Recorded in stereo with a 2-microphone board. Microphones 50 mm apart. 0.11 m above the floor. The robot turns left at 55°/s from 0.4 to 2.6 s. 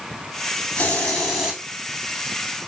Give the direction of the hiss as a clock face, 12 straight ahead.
11 o'clock.